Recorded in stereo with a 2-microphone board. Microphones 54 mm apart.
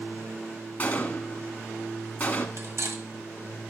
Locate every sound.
0.8 s a gunshot: 30° left (ahead or behind), 1.2 m
2.6 s cutlery clinking: 65° right (ahead or behind), 1.3 m